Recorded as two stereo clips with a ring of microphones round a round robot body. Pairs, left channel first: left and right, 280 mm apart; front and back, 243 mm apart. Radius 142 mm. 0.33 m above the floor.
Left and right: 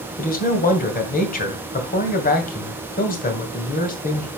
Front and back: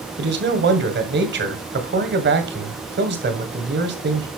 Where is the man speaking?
145° left, 2 m.